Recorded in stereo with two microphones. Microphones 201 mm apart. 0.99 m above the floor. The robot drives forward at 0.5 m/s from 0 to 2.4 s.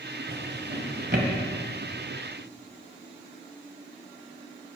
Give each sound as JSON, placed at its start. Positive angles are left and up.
{"t": 0.3, "sound": "a drawer", "side_deg": -65, "distance_m": 1.6}